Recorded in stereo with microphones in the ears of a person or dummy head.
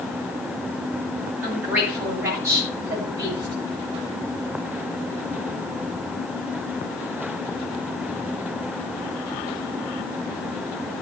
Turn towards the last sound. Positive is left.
turn(degrees=-30)  # may be behind; listen again after turning